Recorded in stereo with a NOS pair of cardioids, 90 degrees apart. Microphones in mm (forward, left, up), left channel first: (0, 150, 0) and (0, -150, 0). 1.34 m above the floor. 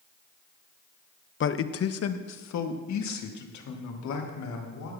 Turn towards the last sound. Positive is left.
turn(degrees=75)